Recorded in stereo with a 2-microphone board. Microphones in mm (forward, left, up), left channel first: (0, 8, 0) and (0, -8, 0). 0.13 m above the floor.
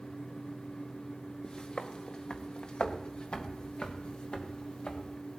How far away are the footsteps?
About 1.8 m.